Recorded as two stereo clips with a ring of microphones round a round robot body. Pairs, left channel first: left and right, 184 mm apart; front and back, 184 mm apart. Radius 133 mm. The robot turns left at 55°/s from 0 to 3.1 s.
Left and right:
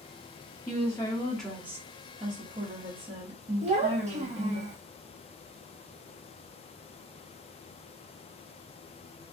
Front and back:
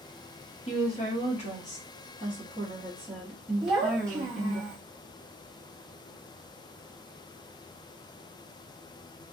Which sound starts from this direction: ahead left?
A woman speaking, at 0.7 s.